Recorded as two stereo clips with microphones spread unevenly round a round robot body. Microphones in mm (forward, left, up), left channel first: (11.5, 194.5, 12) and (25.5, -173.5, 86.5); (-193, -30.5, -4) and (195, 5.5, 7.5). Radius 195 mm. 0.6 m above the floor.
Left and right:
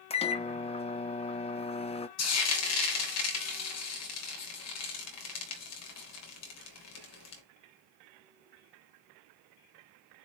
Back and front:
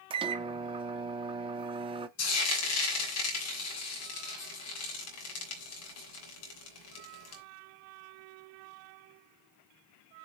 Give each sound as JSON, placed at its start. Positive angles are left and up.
{"t": 0.1, "sound": "a microwave", "azimuth_deg": 70, "distance_m": 0.7}
{"t": 2.2, "sound": "frying", "azimuth_deg": 135, "distance_m": 3.0}